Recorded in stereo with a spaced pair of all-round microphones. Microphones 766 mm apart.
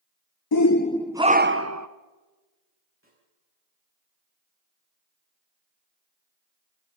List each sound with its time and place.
0.5 s a shout: 35° left (ahead or behind), 0.5 m; by 1.9 s 25° right (ahead or behind), 1.1 m
3.0 s a snare drum: 15° right (ahead or behind), 8.5 m